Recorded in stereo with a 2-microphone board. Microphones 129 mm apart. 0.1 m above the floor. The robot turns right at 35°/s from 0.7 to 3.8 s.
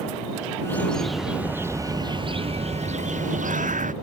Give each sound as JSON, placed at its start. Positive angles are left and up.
{"t": 0.7, "sound": "a bird", "azimuth_deg": 165}